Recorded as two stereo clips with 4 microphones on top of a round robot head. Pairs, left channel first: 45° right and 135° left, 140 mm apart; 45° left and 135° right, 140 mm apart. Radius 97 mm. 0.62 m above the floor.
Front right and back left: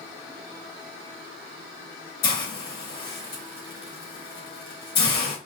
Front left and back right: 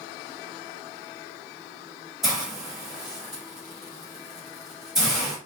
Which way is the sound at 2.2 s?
50° right.